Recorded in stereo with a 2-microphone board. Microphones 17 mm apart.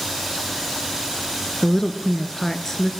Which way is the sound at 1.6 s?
30° left (ahead or behind).